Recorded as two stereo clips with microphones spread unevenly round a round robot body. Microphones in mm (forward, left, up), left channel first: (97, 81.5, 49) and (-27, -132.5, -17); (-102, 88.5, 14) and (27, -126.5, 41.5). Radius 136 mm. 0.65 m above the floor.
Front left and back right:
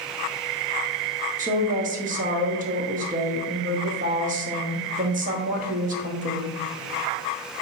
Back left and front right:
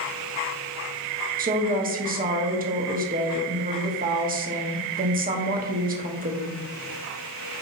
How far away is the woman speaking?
About 1.3 m.